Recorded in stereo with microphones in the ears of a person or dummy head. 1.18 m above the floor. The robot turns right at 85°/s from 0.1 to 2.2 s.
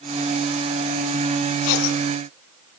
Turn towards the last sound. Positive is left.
turn(degrees=105)